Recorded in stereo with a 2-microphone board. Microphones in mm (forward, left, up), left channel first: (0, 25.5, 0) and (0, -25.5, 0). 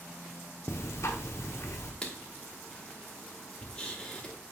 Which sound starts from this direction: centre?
Writing, at 2.0 s.